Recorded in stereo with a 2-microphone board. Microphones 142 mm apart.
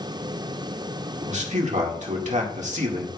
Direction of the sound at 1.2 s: 60° right (ahead or behind).